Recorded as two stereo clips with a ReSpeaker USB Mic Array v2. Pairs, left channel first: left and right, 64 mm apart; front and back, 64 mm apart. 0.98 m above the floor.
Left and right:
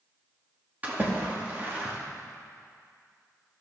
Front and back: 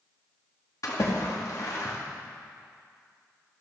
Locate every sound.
0.8 s a splash: 25° right, 2 m